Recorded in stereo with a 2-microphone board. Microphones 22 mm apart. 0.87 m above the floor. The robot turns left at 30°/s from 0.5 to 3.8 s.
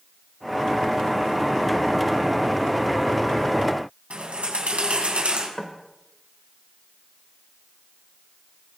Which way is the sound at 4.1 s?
70° right (ahead or behind).